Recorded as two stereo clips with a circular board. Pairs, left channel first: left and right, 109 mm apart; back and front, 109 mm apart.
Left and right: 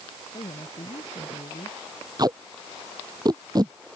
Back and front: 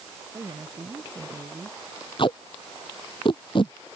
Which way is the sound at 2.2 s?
140° right.